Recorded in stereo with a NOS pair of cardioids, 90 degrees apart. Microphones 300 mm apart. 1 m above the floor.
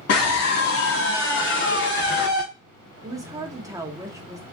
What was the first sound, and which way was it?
A scream, 55° left.